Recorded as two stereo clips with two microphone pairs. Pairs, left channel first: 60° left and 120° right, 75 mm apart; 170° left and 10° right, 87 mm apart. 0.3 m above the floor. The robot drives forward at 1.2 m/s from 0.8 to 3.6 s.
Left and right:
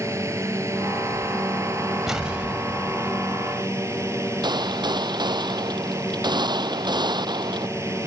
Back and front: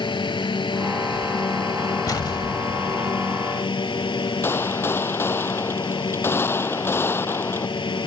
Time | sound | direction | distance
0.0 | a drone | 170° right | ?
2.1 | an explosion | 155° left | ?
4.4 | a gunshot | 125° right | ?